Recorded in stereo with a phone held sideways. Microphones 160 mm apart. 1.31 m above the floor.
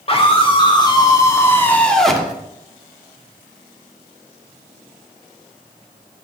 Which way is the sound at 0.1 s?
35° left (ahead or behind).